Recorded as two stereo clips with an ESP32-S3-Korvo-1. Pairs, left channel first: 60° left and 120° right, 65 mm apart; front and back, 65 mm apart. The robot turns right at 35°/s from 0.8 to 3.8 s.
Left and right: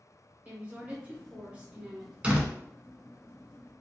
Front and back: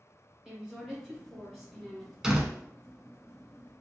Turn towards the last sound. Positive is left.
turn(degrees=-65)